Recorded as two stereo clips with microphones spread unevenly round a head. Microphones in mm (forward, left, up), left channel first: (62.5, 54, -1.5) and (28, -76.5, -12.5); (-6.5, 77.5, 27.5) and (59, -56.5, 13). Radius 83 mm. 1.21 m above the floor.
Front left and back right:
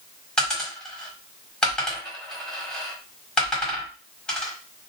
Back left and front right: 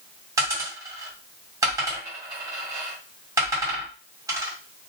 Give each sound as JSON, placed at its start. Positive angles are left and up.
{"t": 0.4, "sound": "a dropped coin", "azimuth_deg": 0, "distance_m": 1.2}